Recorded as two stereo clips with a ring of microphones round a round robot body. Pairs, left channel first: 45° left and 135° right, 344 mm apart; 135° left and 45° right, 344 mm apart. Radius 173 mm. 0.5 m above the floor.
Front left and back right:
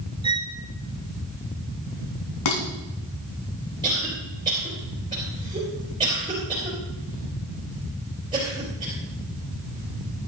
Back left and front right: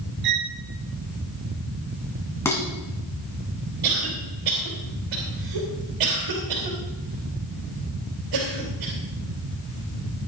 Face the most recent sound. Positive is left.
turn(degrees=-60)